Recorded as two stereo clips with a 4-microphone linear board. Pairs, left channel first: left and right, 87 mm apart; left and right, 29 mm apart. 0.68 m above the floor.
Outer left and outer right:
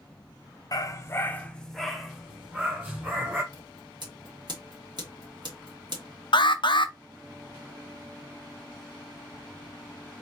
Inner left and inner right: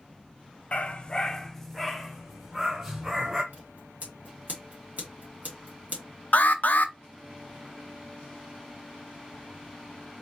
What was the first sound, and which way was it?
A dog barking, 45° left (ahead or behind).